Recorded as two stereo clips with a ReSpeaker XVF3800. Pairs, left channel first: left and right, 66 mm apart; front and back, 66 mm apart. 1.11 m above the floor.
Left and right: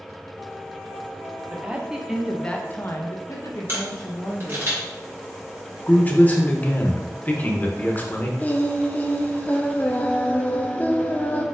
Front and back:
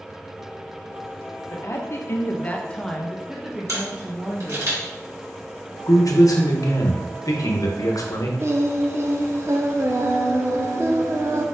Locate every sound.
1.5 s a woman speaking: 25° right, 0.9 m; by 4.7 s 120° left, 1.4 m
3.7 s a camera shutter: 145° right, 1.7 m
5.9 s a man speaking: 25° left, 0.8 m
8.4 s singing: 145° left, 0.5 m